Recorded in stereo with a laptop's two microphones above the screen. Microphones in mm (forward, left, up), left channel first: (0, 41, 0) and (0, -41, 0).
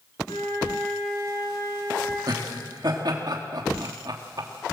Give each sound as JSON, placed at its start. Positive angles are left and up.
{"t": 0.3, "sound": "a flute", "side_deg": 70, "distance_m": 6.0}
{"t": 2.3, "sound": "laughter", "side_deg": -55, "distance_m": 1.9}